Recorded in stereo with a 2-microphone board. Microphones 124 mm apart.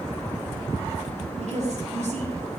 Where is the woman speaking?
60° right (ahead or behind), 4.5 m.